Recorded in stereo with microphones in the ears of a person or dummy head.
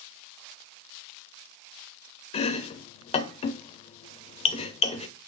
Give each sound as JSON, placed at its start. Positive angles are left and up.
{"t": 2.3, "sound": "chopping", "side_deg": 35, "distance_m": 0.5}